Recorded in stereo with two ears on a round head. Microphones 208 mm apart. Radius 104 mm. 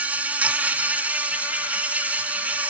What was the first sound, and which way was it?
An insect, 5° right (ahead or behind).